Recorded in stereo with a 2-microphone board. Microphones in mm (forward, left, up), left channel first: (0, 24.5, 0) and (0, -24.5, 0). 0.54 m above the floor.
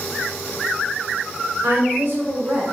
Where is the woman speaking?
55° right (ahead or behind), 2 m.